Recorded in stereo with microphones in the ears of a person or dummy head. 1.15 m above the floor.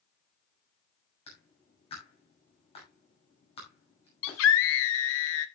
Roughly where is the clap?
Left.